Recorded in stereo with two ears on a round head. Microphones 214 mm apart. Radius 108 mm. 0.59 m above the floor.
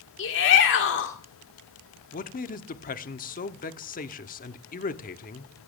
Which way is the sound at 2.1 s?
35° left (ahead or behind).